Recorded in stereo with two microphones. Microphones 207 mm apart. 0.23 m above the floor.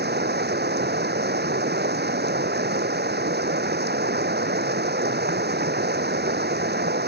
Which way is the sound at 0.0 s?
55° right (ahead or behind).